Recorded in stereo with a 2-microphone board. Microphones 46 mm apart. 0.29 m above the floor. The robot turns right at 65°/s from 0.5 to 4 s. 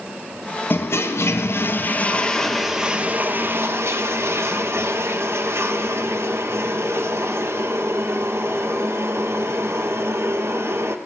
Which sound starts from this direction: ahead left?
A toilet flushing, at 0.7 s.